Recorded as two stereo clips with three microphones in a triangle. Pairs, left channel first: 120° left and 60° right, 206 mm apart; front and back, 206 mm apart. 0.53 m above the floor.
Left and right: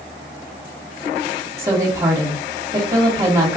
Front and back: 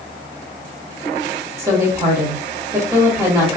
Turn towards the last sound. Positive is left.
turn(degrees=-120)